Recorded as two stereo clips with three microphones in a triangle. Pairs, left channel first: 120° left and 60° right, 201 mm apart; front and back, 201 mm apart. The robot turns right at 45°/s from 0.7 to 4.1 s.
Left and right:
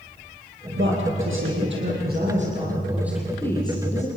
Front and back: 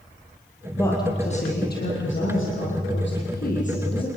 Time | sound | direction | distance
0.8 | a woman speaking | 80° right | 6.5 m